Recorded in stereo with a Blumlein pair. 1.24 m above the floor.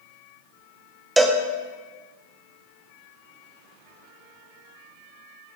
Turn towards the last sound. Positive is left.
turn(degrees=-5)